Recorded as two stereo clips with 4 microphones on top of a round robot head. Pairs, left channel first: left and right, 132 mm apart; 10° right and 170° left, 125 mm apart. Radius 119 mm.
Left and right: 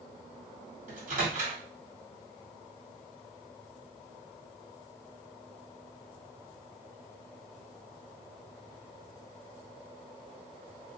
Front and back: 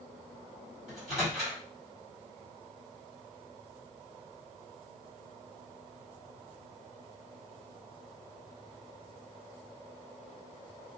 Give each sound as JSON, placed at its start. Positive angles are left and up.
{"t": 0.9, "sound": "a microwave", "azimuth_deg": -105, "distance_m": 1.9}